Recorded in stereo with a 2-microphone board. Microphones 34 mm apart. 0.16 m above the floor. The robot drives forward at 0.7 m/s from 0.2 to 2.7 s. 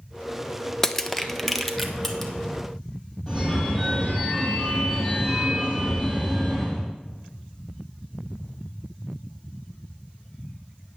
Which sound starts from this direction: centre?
Crushing, at 0.8 s.